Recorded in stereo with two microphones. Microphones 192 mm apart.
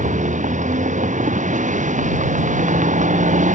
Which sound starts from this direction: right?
A vehicle, at 0.0 s.